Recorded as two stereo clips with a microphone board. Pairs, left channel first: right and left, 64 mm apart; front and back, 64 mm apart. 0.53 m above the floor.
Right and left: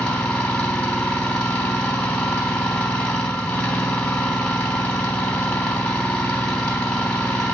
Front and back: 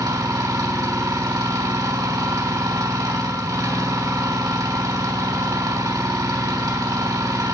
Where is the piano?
No piano in this recording.